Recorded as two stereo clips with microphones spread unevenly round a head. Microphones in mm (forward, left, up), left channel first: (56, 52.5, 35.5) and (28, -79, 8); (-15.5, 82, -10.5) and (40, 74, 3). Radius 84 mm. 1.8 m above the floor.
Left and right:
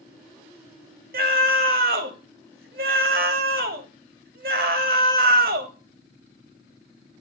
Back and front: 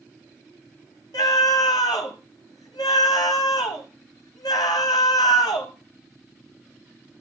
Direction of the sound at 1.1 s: 135° right.